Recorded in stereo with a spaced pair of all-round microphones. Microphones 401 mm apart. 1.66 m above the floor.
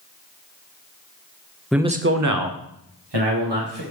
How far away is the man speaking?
About 0.7 m.